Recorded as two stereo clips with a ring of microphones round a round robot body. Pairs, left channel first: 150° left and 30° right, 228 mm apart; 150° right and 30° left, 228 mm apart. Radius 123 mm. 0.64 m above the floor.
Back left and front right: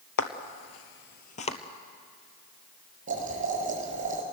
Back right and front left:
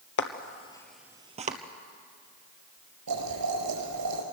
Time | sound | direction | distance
0.2 | footsteps | 175° left | 1.2 m
3.1 | boiling | 30° left | 4.5 m